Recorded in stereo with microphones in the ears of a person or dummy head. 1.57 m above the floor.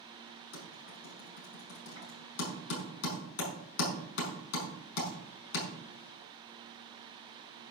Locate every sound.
0.5 s typing on a keyboard: 60° left (ahead or behind), 6 m